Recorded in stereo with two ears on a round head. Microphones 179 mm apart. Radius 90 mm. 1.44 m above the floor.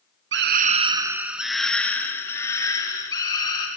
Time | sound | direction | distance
0.3 | a scream | 65° right (ahead or behind) | 1.0 m